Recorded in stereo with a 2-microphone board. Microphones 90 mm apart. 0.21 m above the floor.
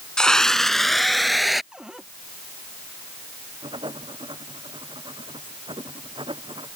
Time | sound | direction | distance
0.2 | a scream | 10° left (ahead or behind) | ?
1.7 | a cupboard door | 10° right (ahead or behind) | ?
3.6 | writing | 65° right (ahead or behind) | ?